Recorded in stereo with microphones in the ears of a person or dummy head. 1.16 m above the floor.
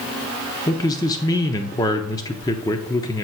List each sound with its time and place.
0.7 s a man speaking: 20° left (ahead or behind), 0.7 m